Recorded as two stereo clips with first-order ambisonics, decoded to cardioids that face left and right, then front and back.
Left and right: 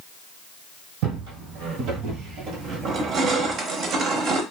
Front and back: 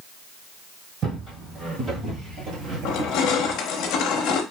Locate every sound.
1.0 s footsteps: 115° right, 1.8 m; by 3.6 s 175° right, 0.9 m
2.9 s crushing: 35° right, 0.7 m